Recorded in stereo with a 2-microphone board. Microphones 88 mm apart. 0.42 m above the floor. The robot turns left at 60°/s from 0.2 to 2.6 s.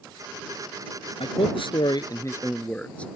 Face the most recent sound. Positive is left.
turn(degrees=15)